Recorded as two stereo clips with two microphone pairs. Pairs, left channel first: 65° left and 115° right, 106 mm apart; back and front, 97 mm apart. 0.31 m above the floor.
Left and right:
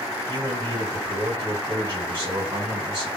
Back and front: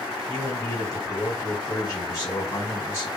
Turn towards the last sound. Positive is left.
turn(degrees=-140)